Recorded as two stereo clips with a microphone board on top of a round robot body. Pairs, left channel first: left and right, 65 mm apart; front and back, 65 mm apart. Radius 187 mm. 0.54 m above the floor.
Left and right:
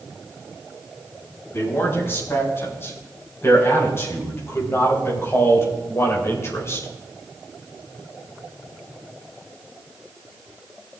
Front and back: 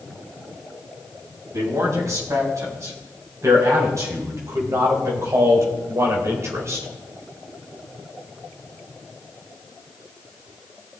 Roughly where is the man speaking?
Behind left.